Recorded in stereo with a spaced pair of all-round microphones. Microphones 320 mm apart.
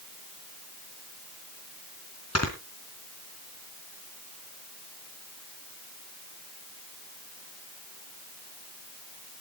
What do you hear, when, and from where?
2.4 s snoring: 50° left (ahead or behind), 3.5 m